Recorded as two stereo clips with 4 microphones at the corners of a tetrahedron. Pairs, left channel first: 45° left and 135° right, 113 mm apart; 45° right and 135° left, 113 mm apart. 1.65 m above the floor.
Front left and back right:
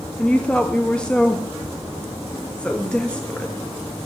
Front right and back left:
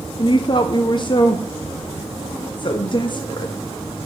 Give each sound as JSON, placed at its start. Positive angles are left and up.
{"t": 0.2, "sound": "a woman speaking", "azimuth_deg": -30, "distance_m": 0.6}